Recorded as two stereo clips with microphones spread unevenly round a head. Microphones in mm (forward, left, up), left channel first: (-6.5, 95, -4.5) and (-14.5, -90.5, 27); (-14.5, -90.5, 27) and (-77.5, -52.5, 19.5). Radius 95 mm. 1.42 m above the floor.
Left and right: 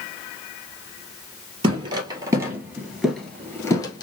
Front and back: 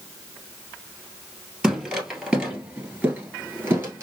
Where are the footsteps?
120° right, 1.8 m; by 4.0 s 140° left, 1.4 m.